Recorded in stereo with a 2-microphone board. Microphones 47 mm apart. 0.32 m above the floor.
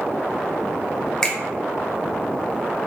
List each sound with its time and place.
1.2 s a finger snap: 15° left (ahead or behind), 0.6 m